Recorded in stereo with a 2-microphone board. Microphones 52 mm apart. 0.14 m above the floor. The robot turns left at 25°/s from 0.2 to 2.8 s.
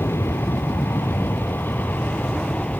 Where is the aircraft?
90° left; by 2.8 s 25° left.